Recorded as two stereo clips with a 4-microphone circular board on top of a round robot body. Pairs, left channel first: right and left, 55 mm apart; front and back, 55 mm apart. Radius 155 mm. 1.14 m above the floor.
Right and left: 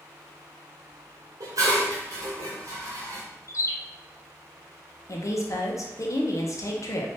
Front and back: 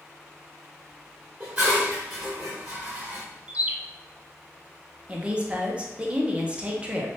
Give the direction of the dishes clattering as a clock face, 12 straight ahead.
8 o'clock.